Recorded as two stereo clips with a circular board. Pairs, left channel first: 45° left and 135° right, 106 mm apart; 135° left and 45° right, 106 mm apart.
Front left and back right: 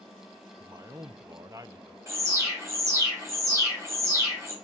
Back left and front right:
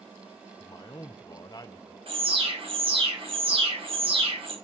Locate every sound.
0.6 s a man speaking: 175° left, 0.6 m
2.1 s an alarm: 70° right, 3.5 m